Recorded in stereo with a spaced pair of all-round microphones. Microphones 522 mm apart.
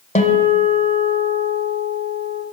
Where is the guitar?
10° left (ahead or behind), 1.3 m.